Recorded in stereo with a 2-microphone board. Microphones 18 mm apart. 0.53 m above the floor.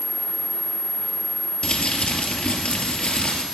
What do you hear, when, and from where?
1.6 s crumpling: 75° left (ahead or behind), 2.5 m